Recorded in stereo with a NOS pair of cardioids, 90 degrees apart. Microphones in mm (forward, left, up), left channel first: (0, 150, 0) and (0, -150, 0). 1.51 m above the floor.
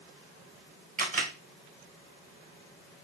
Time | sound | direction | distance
1.0 | a camera shutter | 30° right | 1.6 m